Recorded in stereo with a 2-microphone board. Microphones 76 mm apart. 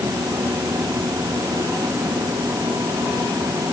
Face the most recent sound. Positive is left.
No sound to turn to.